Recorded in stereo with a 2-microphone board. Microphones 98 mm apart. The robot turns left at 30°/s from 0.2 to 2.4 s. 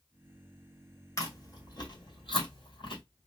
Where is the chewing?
30° left (ahead or behind), 1.5 m; by 3.0 s 60° left (ahead or behind), 1.5 m.